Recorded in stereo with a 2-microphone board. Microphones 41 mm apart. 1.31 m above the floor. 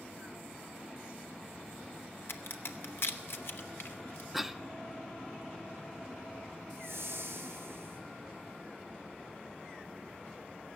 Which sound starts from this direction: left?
A crack, at 2.3 s.